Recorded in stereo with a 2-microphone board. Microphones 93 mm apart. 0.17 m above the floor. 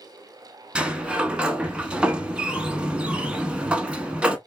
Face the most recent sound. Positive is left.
turn(degrees=-10)  # may be behind; listen again after turning